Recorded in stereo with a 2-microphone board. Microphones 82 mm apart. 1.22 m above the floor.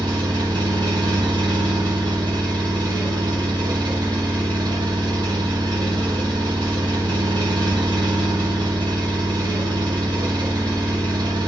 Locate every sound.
0.0 s an engine running: 65° right (ahead or behind), 1.2 m